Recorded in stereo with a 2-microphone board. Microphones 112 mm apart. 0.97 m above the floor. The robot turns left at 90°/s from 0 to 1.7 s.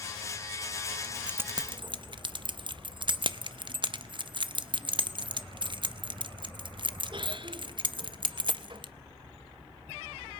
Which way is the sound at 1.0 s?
15° left (ahead or behind).